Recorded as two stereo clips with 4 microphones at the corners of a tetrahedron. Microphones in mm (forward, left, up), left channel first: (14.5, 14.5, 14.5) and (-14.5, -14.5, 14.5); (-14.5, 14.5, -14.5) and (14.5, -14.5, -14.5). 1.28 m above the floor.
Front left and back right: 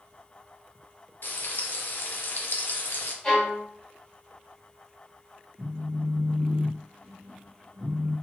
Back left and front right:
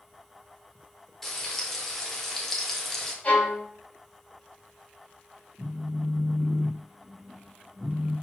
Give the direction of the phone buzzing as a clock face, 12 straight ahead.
4 o'clock.